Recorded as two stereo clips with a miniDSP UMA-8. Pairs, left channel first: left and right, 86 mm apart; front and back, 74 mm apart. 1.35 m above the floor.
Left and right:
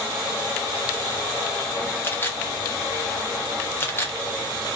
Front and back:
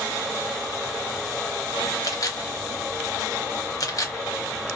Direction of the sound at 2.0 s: 30° left.